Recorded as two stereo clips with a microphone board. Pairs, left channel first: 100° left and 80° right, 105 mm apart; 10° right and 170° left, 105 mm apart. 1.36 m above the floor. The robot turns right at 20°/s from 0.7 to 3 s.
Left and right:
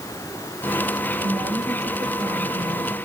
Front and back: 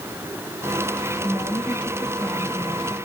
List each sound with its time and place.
1.2 s a woman speaking: 125° right, 3 m; by 3.0 s 90° right, 3 m